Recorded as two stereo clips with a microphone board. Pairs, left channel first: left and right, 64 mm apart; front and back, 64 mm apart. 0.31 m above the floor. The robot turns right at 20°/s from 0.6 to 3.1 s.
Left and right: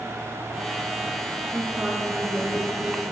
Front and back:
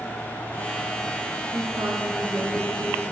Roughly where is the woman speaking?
Behind.